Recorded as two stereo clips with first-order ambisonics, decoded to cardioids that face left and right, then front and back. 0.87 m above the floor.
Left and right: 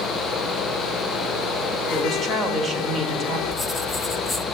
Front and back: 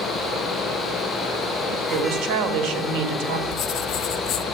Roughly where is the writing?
Ahead.